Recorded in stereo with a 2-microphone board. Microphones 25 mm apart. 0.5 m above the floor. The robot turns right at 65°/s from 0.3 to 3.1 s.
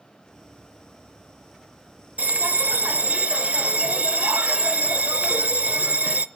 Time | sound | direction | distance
2.2 | a bell | 115° right | 0.7 m